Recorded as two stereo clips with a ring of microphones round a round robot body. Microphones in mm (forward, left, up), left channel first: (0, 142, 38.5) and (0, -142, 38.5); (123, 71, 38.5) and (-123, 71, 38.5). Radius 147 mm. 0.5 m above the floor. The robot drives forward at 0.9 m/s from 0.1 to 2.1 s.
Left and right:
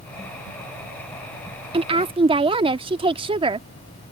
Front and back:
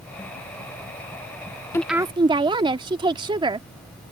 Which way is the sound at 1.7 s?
60° right.